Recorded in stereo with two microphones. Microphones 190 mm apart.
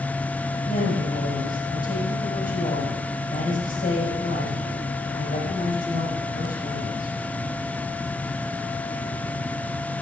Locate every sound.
0.7 s a woman speaking: 50° left (ahead or behind), 6.5 m